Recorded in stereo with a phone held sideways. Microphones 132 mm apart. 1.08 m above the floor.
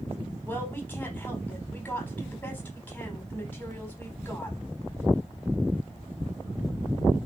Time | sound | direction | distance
0.5 | a woman speaking | 10° left (ahead or behind) | 4.5 m